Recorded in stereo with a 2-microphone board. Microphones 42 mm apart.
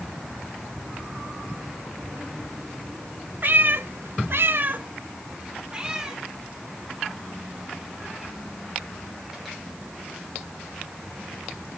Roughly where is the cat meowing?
Right.